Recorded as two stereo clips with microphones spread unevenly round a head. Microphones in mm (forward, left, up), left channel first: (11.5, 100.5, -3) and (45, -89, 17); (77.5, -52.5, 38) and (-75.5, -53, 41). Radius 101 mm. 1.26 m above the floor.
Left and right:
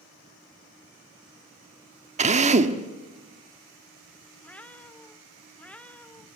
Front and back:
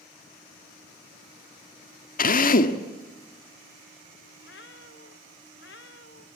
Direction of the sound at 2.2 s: 30° right.